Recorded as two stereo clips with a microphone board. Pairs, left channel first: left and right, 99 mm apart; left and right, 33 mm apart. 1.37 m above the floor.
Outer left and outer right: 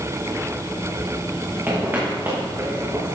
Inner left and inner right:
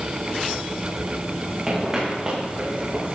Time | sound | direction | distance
1.7 | footsteps | 20° right (ahead or behind) | 7.5 m